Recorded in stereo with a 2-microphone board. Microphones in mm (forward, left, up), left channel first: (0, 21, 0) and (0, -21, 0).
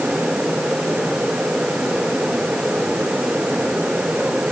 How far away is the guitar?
I don't hear a guitar.